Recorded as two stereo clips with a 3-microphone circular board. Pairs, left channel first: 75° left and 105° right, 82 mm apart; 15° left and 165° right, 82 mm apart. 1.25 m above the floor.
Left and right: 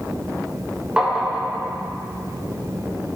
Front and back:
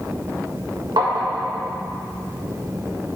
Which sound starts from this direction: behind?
Tapping, at 1.0 s.